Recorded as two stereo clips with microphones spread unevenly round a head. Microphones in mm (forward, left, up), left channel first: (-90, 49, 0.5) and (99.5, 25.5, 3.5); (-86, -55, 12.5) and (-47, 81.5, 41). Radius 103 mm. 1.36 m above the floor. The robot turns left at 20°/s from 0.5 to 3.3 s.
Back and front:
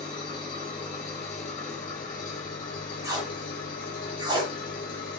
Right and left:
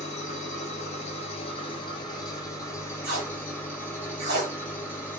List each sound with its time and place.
0.0 s an engine running: 130° right, 1.2 m; by 5.2 s 175° left, 1.2 m
3.0 s tape being pulled: 65° left, 1.0 m; by 4.5 s 60° left, 1.0 m